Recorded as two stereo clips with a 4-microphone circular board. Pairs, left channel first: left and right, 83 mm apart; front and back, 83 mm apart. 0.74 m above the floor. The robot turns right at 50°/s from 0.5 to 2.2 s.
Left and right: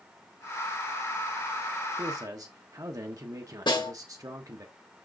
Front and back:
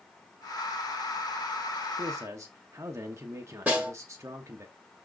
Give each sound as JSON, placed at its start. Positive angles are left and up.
{"t": 2.0, "sound": "a man speaking", "azimuth_deg": -140, "distance_m": 0.9}
{"t": 3.7, "sound": "a snare drum", "azimuth_deg": 105, "distance_m": 2.5}